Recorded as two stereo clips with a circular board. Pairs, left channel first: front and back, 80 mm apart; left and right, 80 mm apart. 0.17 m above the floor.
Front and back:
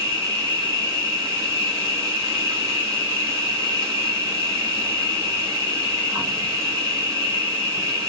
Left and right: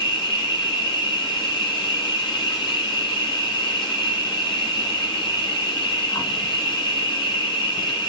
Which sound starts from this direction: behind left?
An insect, at 0.0 s.